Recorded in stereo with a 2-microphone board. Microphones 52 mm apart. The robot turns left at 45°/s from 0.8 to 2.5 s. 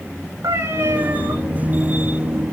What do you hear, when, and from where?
0.4 s a cat meowing: 90° right, 4.5 m; by 1.3 s 65° right (ahead or behind), 4.5 m